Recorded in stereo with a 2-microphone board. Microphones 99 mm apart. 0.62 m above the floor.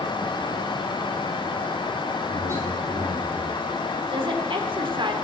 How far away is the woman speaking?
About 1.6 m.